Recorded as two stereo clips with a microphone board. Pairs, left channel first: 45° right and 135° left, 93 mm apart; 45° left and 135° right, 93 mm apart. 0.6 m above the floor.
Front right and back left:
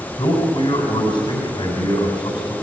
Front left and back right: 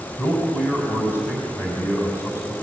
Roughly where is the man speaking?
Ahead.